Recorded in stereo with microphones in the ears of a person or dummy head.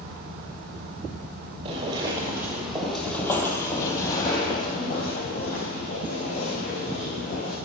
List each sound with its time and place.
1.6 s footsteps: 20° right (ahead or behind), 1.8 m; by 7.6 s 50° left (ahead or behind), 5 m